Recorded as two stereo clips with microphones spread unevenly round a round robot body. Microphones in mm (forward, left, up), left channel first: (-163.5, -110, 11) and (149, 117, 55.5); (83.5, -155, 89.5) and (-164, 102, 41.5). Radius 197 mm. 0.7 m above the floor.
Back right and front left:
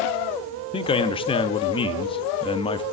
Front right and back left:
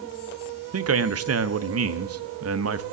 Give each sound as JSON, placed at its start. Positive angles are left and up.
{"t": 0.7, "sound": "a man speaking", "azimuth_deg": 150, "distance_m": 0.8}